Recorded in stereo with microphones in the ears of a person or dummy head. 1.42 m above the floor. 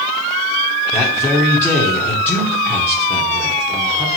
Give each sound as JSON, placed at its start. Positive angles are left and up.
{"t": 0.9, "sound": "a man speaking", "side_deg": 10, "distance_m": 1.1}